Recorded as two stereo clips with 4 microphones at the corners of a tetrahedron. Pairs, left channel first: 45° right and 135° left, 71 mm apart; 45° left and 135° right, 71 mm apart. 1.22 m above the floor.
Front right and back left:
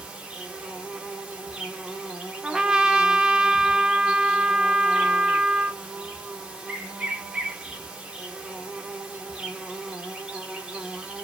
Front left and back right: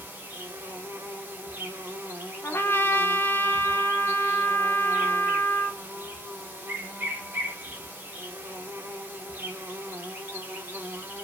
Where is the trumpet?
60° left, 0.6 m.